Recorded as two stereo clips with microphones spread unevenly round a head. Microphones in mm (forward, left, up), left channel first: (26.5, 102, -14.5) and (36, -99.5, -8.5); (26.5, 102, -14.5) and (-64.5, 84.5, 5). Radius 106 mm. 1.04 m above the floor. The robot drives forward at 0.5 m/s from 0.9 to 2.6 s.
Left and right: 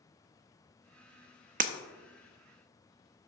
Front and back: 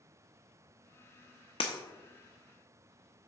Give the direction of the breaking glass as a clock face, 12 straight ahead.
1 o'clock.